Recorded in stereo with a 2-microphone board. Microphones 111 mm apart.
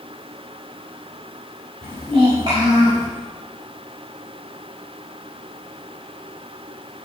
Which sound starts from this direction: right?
A child speaking, at 1.8 s.